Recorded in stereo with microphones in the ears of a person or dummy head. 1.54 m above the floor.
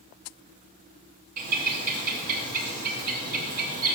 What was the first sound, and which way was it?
A bird, 50° right (ahead or behind).